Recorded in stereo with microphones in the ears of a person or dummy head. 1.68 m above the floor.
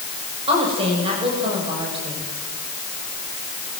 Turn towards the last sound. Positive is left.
turn(degrees=-35)  # may be behind; listen again after turning